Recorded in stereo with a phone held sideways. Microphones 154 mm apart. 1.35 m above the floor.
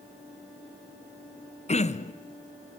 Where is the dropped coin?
I don't hear a dropped coin.